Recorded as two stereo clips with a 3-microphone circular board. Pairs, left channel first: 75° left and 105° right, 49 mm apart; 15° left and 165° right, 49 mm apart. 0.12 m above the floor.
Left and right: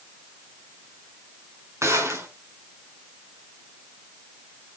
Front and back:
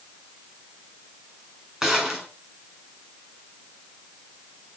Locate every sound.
1.8 s a gunshot: 90° right, 6.5 m